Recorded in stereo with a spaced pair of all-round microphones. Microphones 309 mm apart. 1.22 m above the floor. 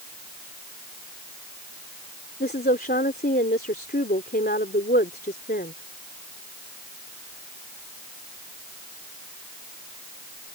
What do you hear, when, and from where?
2.4 s a woman speaking: 35° left (ahead or behind)